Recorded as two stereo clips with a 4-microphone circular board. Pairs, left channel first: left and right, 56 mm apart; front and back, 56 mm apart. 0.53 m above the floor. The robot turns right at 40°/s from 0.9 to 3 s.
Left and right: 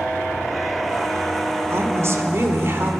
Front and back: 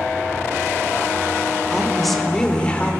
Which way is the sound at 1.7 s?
100° right.